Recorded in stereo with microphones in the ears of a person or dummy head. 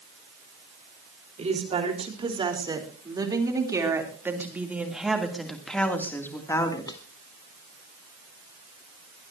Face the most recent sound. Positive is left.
turn(degrees=25)  # may be behind; listen again after turning